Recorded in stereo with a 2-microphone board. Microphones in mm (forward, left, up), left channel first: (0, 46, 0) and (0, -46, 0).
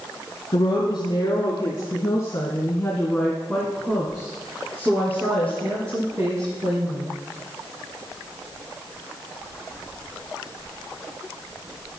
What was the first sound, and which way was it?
A woman speaking, 60° left (ahead or behind).